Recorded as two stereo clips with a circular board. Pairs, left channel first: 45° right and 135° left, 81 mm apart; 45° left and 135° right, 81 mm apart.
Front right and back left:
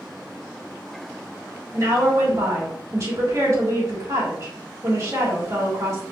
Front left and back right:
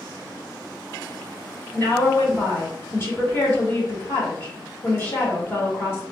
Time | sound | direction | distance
1.7 | a woman speaking | 100° left | 2 m